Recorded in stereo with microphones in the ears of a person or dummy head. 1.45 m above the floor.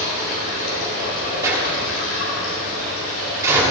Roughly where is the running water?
Left.